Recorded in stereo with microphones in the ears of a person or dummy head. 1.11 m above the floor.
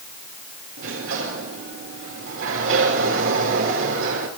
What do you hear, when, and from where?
0.8 s a sliding door: 60° right (ahead or behind), 4 m